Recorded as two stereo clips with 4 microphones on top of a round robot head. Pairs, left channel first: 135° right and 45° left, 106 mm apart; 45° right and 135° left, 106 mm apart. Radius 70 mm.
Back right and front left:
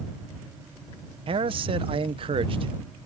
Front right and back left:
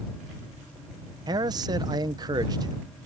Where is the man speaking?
80° left.